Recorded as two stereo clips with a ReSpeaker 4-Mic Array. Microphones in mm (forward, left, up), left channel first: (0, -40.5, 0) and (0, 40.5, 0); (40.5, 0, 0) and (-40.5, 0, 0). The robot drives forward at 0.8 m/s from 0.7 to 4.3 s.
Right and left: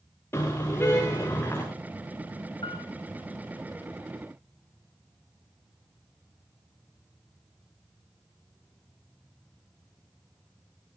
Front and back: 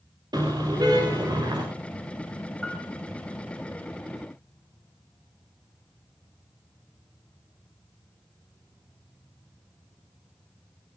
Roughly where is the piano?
Right.